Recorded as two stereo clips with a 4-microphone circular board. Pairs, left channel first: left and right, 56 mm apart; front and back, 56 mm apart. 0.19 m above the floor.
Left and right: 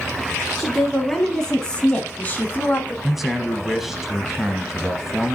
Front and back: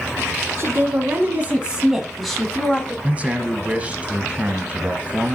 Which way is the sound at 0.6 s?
175° right.